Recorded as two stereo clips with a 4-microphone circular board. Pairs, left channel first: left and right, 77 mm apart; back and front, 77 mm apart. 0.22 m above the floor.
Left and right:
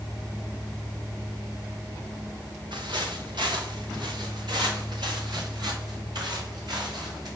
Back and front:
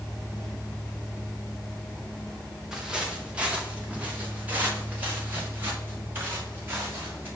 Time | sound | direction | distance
2.7 | footsteps | 85° right | 2 m